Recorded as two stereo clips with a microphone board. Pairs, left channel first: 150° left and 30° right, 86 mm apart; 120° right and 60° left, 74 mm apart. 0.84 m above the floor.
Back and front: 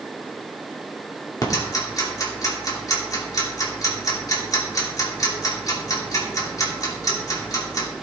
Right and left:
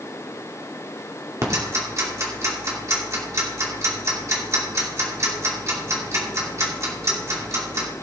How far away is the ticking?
About 2.5 m.